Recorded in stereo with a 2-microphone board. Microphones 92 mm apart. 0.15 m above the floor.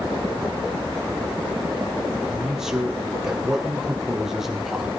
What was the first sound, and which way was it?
A man speaking, 5° right (ahead or behind).